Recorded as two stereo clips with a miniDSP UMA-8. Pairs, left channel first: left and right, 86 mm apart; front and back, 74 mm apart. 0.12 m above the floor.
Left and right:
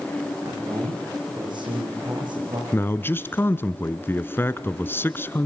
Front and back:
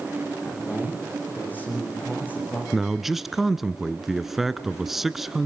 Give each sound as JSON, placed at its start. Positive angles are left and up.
{"t": 0.4, "sound": "a man speaking", "azimuth_deg": -65, "distance_m": 9.0}
{"t": 2.7, "sound": "a man speaking", "azimuth_deg": 100, "distance_m": 1.1}